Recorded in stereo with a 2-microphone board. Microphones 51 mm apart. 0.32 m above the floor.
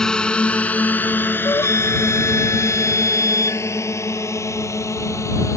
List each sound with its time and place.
0.0 s a drone: 10° left (ahead or behind); by 5.6 s 70° left (ahead or behind)
1.4 s a flute: 85° left